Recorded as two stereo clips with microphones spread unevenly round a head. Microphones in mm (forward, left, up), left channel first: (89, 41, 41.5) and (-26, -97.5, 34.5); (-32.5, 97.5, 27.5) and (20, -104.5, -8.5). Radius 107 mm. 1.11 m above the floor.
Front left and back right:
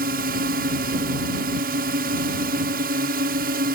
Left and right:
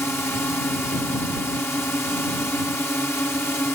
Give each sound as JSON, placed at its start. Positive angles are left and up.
{"t": 0.0, "sound": "a drone", "azimuth_deg": -175}